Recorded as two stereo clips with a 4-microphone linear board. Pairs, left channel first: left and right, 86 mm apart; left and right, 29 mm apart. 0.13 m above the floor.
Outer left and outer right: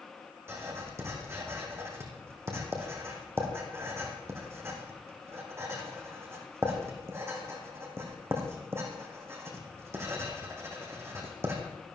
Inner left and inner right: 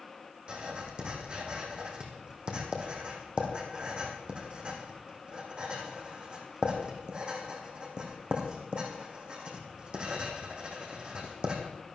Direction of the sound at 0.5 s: 30° right (ahead or behind).